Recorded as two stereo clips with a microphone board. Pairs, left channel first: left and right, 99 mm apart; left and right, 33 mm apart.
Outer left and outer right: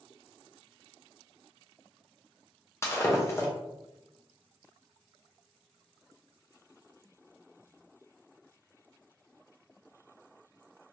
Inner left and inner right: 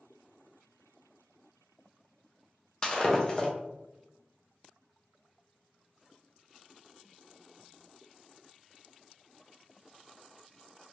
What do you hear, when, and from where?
2.8 s breaking glass: 25° left (ahead or behind), 0.7 m